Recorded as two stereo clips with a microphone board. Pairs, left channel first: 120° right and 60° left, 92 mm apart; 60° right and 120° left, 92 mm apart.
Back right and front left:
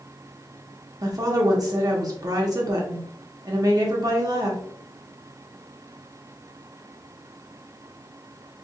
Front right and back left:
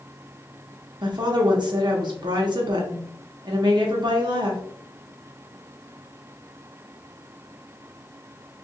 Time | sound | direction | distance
1.0 | a woman speaking | 95° left | 1.0 m